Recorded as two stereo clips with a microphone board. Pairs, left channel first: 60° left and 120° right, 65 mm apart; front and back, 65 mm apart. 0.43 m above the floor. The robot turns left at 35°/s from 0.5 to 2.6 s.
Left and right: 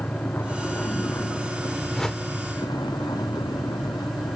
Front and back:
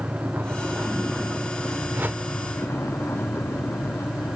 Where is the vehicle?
120° left; by 4.4 s 55° left.